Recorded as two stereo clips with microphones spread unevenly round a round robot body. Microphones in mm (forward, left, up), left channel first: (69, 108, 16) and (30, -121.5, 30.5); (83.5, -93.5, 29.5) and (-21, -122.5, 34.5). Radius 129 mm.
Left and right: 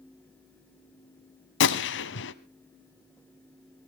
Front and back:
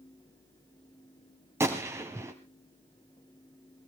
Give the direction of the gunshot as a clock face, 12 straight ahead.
8 o'clock.